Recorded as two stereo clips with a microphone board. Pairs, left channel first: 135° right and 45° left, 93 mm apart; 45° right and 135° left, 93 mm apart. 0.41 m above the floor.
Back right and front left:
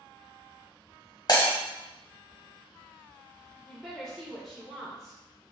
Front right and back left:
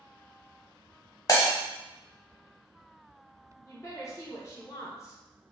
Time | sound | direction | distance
1.3 | breaking glass | 95° right | 1.1 m
3.6 | a woman speaking | 50° right | 1.1 m